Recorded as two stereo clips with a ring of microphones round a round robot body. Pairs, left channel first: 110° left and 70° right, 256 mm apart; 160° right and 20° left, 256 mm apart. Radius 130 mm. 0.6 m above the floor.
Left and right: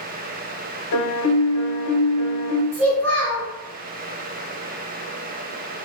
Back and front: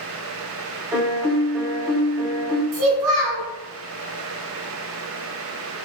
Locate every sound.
0.9 s a piano: 95° left, 0.5 m
2.7 s a child speaking: 30° left, 1.3 m